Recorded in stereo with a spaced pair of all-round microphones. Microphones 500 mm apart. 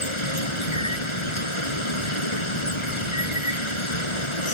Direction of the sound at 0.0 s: 85° left.